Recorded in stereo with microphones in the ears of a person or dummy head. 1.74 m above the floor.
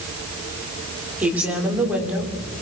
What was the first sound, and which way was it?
A woman speaking, 5° right (ahead or behind).